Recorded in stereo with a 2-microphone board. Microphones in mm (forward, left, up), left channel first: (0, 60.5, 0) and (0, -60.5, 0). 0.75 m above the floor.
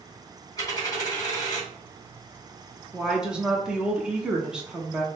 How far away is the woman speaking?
About 1.1 m.